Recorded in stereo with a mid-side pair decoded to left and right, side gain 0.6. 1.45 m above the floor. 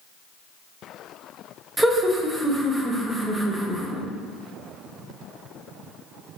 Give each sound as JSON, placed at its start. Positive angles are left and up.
{"t": 1.8, "sound": "laughter", "azimuth_deg": -20, "distance_m": 0.9}